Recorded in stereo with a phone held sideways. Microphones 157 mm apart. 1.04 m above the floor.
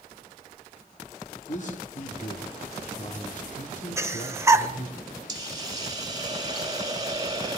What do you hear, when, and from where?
1.5 s a man speaking: 50° left (ahead or behind), 2.5 m
4.0 s breathing: 20° right (ahead or behind), 1.1 m
5.3 s a hiss: 25° right (ahead or behind), 4 m